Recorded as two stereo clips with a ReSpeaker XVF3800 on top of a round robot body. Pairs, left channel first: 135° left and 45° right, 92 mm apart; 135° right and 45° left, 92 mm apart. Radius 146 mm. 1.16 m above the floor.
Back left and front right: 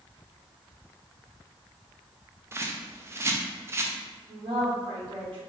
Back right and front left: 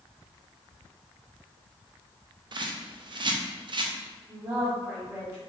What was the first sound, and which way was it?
A bird, 15° left.